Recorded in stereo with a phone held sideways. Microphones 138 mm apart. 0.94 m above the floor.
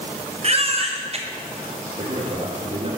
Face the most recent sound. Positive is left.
turn(degrees=-60)  # may be behind; listen again after turning